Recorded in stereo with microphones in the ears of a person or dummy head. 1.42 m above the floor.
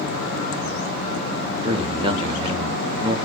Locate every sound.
1.6 s a man speaking: 25° right (ahead or behind), 0.7 m